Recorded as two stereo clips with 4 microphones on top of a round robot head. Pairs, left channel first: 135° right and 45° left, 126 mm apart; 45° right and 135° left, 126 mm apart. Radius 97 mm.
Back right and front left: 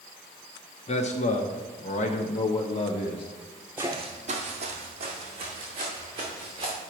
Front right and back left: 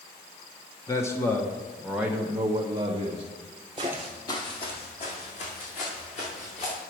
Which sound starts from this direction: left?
Footsteps, at 3.8 s.